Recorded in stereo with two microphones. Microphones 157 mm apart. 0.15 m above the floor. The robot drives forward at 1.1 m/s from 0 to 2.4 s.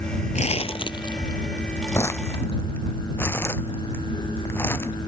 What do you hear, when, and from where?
0.3 s crumpling: 50° left (ahead or behind); by 4.9 s 15° left (ahead or behind)